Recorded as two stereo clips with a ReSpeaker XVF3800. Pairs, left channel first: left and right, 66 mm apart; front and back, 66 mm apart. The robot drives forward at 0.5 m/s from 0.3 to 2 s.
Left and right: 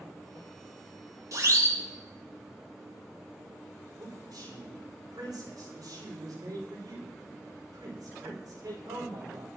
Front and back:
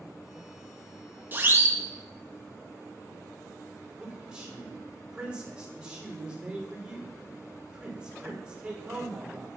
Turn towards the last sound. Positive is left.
turn(degrees=-105)